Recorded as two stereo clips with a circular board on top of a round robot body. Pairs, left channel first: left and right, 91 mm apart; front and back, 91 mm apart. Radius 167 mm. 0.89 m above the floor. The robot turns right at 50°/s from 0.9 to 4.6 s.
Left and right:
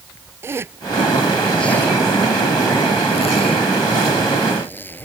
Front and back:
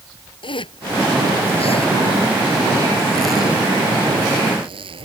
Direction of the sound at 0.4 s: 30° right.